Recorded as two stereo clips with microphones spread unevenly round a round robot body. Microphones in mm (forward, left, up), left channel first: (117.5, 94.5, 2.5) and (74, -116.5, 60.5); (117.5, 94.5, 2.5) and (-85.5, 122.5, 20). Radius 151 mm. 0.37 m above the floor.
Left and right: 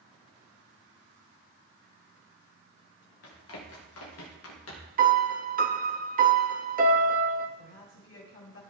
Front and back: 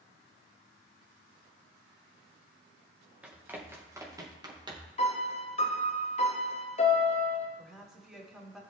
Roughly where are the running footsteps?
Left.